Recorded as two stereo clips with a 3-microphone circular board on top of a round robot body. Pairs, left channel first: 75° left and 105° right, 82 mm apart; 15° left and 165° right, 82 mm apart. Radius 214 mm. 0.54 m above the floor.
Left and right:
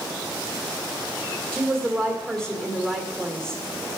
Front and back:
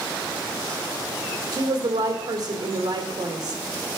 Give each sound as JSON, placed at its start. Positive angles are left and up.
{"t": 1.5, "sound": "a woman speaking", "azimuth_deg": 155, "distance_m": 2.5}